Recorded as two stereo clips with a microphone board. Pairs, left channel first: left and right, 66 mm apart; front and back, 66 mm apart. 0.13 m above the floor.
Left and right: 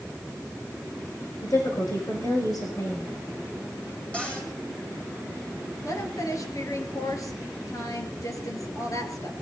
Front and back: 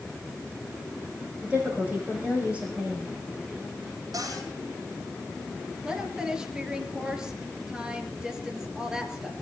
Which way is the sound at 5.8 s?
100° left.